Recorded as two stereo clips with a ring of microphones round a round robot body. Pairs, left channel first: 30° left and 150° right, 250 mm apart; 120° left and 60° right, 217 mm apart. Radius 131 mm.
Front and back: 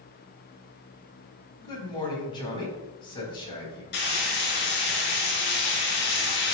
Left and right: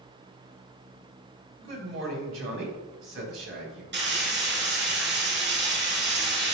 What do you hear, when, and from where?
1.6 s a man speaking: 40° right, 4 m
3.9 s frying: 20° right, 3 m